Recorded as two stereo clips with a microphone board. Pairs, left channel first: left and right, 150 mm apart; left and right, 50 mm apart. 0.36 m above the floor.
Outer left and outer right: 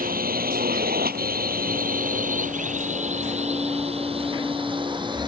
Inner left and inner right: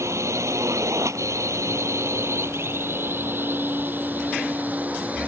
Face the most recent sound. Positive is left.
turn(degrees=-30)  # may be behind; listen again after turning